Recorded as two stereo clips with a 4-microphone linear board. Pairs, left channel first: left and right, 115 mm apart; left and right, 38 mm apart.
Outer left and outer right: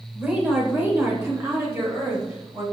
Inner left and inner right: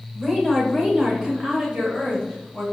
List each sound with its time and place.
0.1 s a woman speaking: 10° right (ahead or behind), 1.3 m; by 2.6 s 30° right (ahead or behind), 1.7 m